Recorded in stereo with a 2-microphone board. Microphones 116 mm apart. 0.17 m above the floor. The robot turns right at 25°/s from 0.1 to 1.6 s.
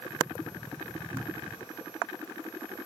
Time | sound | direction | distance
1.1 | a cupboard door | 20° right (ahead or behind) | ?